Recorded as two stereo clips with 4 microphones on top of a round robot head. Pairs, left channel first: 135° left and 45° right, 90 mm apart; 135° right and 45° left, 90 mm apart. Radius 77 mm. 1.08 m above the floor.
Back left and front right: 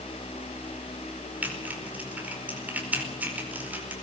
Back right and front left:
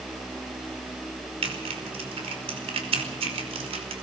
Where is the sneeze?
I don't hear a sneeze.